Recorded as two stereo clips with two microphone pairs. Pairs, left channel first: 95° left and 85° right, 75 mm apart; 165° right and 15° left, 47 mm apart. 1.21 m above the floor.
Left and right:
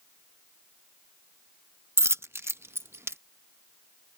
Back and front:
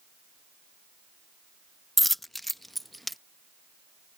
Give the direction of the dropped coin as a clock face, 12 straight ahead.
3 o'clock.